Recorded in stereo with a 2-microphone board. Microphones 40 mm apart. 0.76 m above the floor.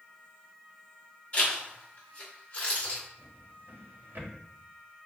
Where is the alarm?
No alarm in this recording.